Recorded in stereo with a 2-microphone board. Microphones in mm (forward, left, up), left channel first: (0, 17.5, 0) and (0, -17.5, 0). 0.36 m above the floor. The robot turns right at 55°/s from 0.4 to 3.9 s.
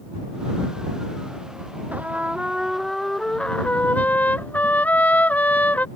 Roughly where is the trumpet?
Ahead right.